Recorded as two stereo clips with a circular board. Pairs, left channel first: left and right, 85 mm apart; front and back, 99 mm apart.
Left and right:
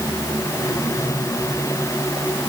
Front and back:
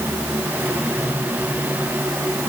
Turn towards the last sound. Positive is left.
No sound to turn to.